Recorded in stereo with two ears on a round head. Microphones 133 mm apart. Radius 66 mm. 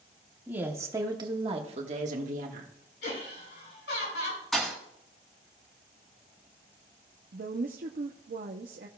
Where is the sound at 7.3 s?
55° right (ahead or behind), 0.6 m.